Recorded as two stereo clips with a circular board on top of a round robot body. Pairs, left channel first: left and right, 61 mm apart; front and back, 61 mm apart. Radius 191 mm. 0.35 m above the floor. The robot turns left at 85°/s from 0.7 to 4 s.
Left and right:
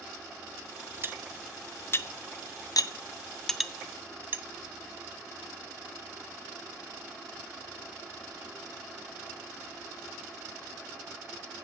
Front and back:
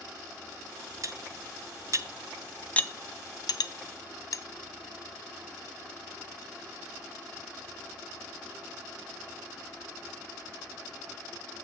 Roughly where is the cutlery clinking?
Behind right.